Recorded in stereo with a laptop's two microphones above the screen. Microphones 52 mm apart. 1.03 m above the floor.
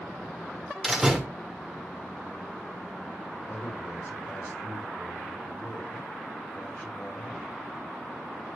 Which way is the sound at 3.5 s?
45° left (ahead or behind).